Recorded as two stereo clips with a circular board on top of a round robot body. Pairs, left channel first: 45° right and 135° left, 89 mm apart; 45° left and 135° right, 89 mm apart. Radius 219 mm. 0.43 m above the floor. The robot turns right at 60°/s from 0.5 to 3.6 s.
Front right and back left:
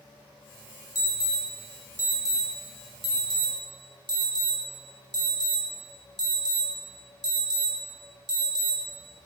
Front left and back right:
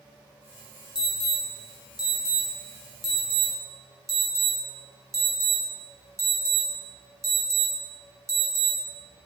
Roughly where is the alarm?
Ahead.